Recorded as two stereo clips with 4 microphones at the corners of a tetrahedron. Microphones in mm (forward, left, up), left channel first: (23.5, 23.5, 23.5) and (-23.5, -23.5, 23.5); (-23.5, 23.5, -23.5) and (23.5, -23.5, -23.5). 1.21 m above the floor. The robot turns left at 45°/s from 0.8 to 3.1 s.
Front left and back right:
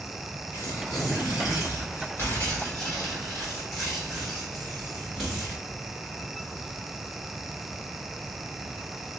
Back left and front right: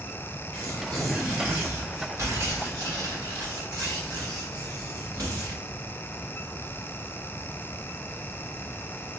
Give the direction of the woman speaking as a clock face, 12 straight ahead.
I don't hear a woman speaking.